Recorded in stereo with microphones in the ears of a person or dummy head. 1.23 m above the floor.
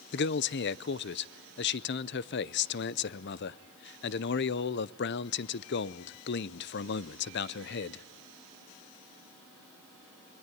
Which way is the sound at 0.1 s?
50° left (ahead or behind).